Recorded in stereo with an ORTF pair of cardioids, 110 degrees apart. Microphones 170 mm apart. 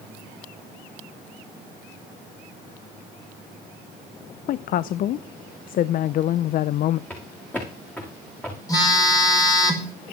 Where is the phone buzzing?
20° left, 5 m.